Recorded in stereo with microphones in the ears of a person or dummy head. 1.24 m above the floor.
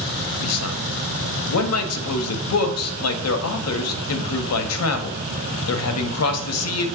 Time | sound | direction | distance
0.4 | a man speaking | 75° left (ahead or behind) | 0.6 m